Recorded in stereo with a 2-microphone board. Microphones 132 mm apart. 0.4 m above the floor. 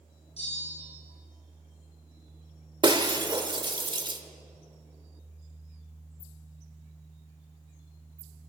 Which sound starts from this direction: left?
A bell, at 0.4 s.